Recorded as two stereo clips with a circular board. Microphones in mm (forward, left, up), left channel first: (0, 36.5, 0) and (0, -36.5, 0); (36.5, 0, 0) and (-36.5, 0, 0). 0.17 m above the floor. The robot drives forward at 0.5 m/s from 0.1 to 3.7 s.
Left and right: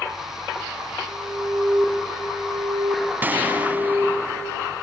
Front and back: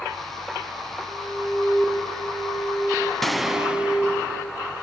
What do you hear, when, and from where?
1.1 s an alarm: 65° right, 6.5 m; by 4.1 s 75° right, 6 m
3.2 s a gunshot: 85° right, 1.0 m; by 4.4 s 120° right, 1.0 m